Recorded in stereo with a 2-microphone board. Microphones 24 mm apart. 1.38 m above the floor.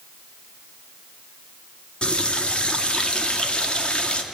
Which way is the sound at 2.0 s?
45° left (ahead or behind).